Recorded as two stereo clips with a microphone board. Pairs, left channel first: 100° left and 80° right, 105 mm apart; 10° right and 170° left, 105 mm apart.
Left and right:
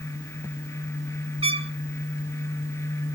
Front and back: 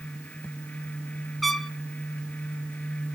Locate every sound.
1.4 s a trumpet: 100° right, 0.7 m